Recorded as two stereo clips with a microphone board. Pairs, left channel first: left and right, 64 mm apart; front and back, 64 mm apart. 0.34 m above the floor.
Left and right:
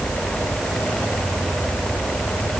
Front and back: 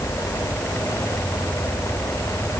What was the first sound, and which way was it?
Only background noise.